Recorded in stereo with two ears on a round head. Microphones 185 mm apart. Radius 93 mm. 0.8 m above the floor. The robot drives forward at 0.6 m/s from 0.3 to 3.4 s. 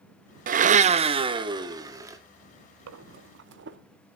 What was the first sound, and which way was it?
A blender, 40° right (ahead or behind).